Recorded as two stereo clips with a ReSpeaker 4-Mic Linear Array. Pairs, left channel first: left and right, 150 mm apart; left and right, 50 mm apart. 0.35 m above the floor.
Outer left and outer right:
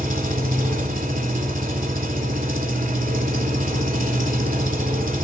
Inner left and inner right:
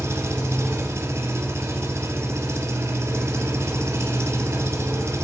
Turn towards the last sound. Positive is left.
turn(degrees=-65)  # may be behind; listen again after turning